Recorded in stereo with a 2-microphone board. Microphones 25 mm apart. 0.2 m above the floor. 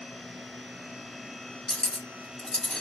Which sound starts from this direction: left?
Cutlery clinking, at 1.7 s.